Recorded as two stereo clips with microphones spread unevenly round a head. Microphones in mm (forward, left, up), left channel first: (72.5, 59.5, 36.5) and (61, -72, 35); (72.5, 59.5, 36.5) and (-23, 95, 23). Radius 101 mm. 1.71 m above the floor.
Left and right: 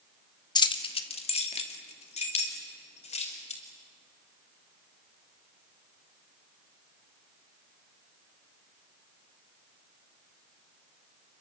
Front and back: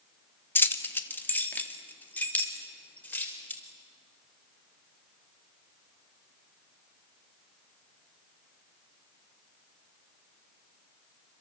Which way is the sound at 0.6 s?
35° left.